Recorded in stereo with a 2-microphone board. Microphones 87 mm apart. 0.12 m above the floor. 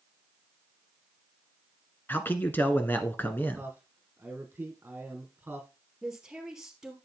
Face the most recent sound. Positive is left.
turn(degrees=-10)  # may be behind; listen again after turning